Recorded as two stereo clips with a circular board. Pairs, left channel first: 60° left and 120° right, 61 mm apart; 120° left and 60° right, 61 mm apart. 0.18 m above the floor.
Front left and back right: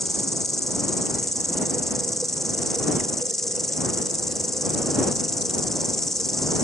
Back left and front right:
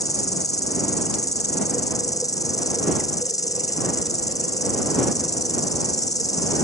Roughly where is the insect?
Behind left.